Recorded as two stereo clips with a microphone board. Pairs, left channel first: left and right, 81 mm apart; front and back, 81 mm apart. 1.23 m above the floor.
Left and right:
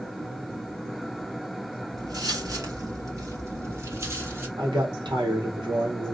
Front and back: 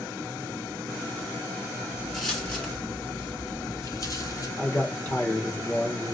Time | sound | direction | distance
2.0 | footsteps | 90° right | 1.7 m
4.6 | a man speaking | 70° right | 1.5 m